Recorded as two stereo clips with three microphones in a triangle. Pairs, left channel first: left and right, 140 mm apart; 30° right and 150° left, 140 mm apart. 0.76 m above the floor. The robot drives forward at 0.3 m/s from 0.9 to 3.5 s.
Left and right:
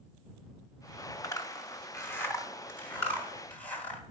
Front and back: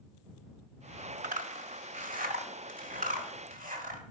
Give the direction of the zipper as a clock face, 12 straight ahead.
7 o'clock.